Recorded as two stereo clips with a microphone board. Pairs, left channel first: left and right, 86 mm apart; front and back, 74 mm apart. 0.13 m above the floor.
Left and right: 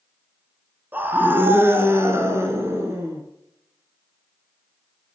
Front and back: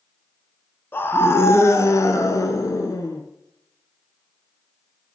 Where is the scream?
35° right, 1.3 m.